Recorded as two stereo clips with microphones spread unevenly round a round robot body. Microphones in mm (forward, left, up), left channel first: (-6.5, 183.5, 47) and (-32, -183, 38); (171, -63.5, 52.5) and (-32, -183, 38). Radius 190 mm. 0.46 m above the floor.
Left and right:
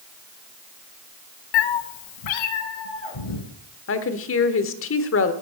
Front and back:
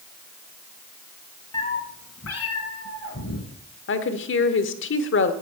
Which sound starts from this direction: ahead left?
A woman speaking, at 3.9 s.